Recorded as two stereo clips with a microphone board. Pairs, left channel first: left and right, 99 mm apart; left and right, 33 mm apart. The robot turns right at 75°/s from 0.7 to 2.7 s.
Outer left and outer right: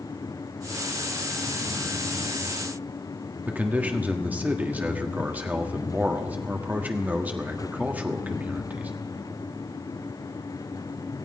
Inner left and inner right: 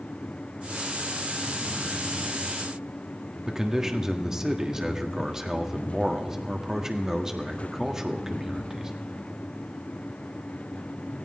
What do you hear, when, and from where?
3.5 s a man speaking: 15° right (ahead or behind), 1.5 m